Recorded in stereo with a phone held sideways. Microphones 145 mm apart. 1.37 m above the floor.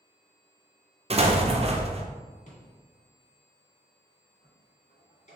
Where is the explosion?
45° right (ahead or behind), 0.5 m.